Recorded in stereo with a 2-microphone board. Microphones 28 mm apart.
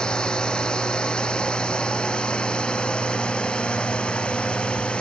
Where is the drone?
35° left (ahead or behind); by 5.0 s 40° left (ahead or behind).